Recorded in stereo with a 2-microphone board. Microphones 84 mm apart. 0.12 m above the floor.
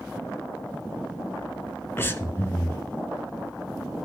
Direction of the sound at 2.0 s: 30° left (ahead or behind).